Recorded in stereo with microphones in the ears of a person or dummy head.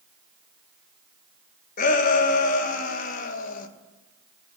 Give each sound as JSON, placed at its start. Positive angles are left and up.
{"t": 1.8, "sound": "a shout", "side_deg": 50, "distance_m": 1.6}